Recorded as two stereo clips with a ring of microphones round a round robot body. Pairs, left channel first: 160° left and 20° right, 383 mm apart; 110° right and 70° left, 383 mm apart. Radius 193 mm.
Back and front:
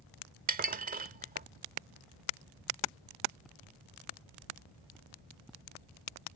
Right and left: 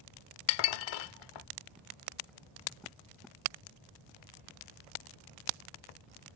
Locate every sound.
0.5 s dishes clattering: 90° right